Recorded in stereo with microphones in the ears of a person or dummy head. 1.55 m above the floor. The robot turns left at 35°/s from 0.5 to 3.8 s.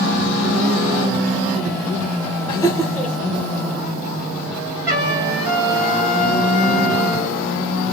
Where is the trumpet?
20° right (ahead or behind), 1.6 m.